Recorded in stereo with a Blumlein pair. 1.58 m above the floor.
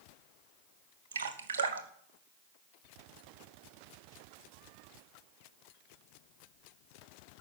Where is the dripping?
65° right, 1.0 m.